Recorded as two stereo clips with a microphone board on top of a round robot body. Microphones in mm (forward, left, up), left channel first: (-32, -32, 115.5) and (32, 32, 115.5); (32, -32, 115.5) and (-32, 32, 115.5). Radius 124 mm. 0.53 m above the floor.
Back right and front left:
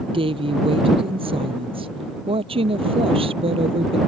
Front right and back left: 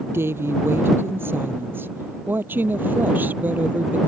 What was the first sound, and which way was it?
A woman speaking, 70° left.